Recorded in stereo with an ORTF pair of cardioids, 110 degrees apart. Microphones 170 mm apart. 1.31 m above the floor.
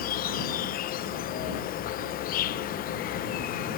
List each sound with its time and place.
0.0 s an insect: 60° left